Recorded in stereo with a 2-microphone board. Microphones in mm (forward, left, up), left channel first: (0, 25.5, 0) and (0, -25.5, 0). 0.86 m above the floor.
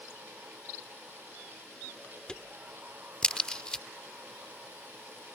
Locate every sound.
2.3 s a crack: 20° left (ahead or behind)